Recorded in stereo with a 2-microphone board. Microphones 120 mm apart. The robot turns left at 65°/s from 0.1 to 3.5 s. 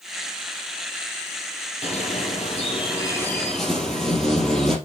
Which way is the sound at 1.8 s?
110° left.